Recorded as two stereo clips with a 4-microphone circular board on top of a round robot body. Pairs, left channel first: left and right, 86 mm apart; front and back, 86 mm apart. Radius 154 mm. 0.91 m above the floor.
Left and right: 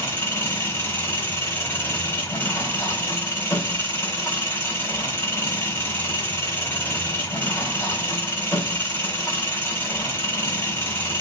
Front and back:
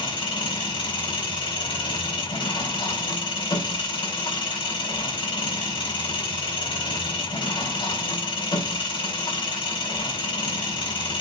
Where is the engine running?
25° left, 3.5 m.